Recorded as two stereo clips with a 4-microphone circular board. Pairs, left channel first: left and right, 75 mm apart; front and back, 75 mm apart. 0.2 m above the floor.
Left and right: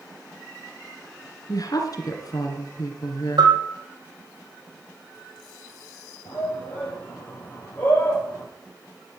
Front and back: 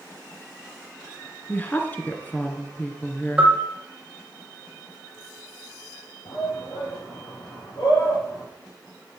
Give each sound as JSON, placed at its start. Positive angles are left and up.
{"t": 1.5, "sound": "a woman speaking", "azimuth_deg": 65, "distance_m": 2.0}
{"t": 3.4, "sound": "a bell", "azimuth_deg": -105, "distance_m": 3.0}
{"t": 6.2, "sound": "a shout", "azimuth_deg": 25, "distance_m": 5.5}